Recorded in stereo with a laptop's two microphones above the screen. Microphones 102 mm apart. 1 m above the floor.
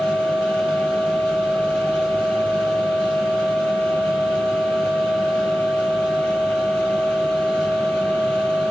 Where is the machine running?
10° left (ahead or behind), 5.5 m.